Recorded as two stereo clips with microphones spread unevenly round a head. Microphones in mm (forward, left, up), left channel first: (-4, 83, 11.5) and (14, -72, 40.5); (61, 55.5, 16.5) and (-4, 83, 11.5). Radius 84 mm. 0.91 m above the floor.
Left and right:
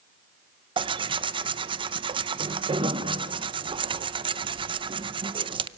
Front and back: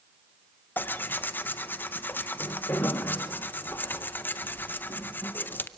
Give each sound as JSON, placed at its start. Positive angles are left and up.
{"t": 0.8, "sound": "tearing paper", "azimuth_deg": -45, "distance_m": 0.6}